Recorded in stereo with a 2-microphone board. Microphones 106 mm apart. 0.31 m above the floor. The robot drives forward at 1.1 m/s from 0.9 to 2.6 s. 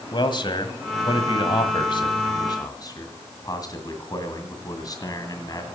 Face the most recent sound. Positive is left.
turn(degrees=35)  # may be behind; listen again after turning